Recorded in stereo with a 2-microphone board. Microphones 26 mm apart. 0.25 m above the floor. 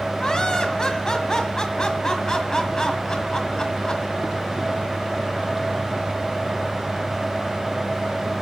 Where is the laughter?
30° left (ahead or behind), 1.5 m.